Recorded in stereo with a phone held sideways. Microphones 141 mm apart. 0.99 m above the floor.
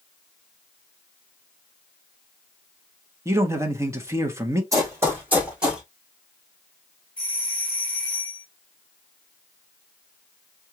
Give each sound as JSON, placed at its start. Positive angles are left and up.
{"t": 3.2, "sound": "a man speaking", "side_deg": -20, "distance_m": 1.0}
{"t": 4.7, "sound": "running footsteps", "side_deg": -25, "distance_m": 2.5}
{"t": 7.2, "sound": "a doorbell", "side_deg": 10, "distance_m": 2.5}